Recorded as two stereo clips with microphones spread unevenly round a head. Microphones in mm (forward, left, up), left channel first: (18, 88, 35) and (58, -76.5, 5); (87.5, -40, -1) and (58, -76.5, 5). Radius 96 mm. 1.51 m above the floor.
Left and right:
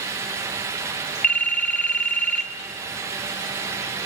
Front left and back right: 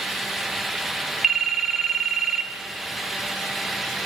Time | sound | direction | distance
1.2 | a phone ringing | 145° left | 0.9 m